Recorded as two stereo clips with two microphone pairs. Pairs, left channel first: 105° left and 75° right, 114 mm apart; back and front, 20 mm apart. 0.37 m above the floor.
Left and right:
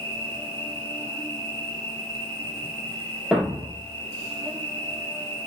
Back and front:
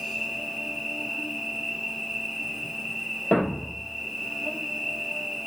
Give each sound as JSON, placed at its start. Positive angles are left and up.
{"t": 0.0, "sound": "an insect", "azimuth_deg": -75, "distance_m": 1.7}
{"t": 3.3, "sound": "a thud", "azimuth_deg": -160, "distance_m": 1.1}